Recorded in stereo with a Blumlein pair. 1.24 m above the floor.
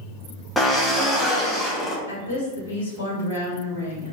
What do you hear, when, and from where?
0.6 s a drill: 5° left, 0.6 m
2.1 s a woman speaking: 60° left, 1.1 m